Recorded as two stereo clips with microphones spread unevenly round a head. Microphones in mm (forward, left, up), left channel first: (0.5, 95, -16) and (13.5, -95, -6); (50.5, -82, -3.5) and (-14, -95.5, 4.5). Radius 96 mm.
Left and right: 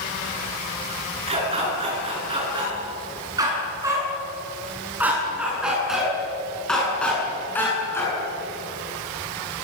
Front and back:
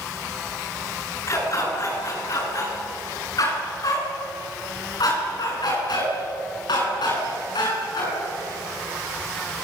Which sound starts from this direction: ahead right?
A dog barking, at 1.3 s.